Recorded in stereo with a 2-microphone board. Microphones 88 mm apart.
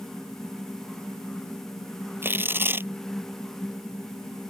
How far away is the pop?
I don't hear a pop.